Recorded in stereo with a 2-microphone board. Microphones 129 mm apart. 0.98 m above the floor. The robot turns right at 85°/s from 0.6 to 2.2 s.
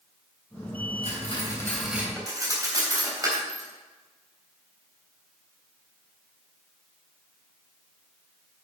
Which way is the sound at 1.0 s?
70° left (ahead or behind).